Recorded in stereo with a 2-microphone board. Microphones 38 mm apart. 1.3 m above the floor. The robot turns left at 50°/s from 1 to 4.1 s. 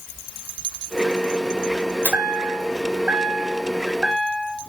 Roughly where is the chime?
Right.